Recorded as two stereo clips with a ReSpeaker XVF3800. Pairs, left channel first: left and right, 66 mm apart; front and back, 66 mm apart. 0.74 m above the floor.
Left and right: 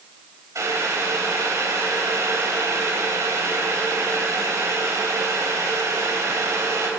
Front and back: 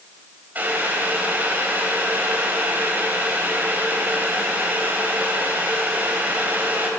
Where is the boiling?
120° right, 3.5 m.